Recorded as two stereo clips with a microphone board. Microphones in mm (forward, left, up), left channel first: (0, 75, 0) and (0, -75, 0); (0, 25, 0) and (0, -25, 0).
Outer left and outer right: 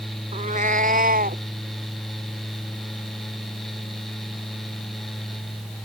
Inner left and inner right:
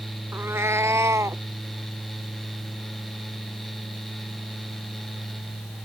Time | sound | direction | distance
0.3 | a cat meowing | 55° right (ahead or behind) | ?